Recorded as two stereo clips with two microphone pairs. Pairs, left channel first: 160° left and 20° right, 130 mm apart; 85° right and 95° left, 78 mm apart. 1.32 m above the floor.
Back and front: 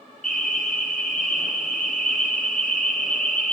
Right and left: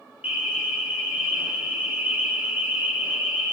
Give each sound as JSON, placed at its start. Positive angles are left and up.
{"t": 0.2, "sound": "an alarm", "azimuth_deg": 170, "distance_m": 3.0}